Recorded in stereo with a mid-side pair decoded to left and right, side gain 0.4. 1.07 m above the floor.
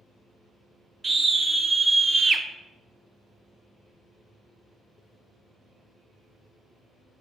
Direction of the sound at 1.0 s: 35° right.